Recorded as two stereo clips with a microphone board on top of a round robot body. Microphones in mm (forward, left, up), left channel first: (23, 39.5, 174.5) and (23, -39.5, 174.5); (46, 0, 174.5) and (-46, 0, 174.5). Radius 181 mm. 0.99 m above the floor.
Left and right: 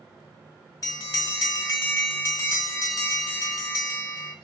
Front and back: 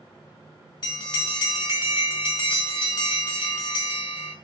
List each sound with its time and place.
0.8 s a bell: 40° left, 1.1 m